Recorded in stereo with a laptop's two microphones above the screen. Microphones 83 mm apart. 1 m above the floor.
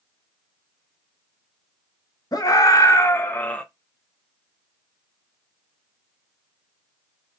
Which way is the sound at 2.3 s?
50° left (ahead or behind).